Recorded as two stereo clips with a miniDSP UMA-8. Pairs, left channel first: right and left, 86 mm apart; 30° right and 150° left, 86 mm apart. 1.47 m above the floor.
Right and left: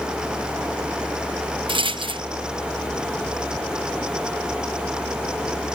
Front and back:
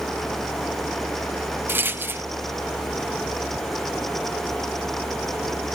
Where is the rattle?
85° left, 0.7 m.